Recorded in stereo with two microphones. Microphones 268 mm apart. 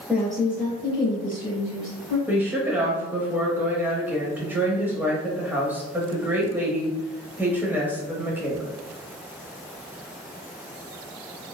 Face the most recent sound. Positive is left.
turn(degrees=-5)  # may be behind; listen again after turning